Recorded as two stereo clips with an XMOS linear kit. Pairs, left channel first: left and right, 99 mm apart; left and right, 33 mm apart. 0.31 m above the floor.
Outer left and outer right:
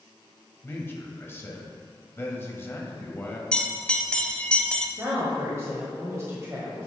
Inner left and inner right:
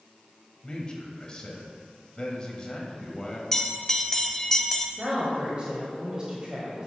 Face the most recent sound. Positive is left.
turn(degrees=-30)  # may be behind; listen again after turning